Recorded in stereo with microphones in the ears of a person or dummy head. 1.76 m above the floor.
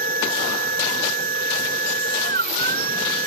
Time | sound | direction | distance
0.0 | a machine running | 50° right (ahead or behind) | ?